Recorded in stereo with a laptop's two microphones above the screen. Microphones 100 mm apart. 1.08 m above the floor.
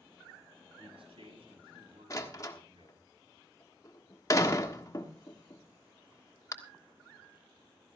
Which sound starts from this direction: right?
A man speaking, at 0.8 s.